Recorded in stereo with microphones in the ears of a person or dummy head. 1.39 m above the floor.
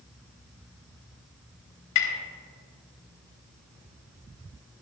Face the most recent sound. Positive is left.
turn(degrees=80)